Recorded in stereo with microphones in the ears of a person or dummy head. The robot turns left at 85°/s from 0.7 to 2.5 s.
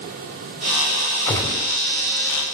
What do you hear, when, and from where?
1.3 s a gunshot: 165° left, 3 m; by 1.7 s 130° left, 3 m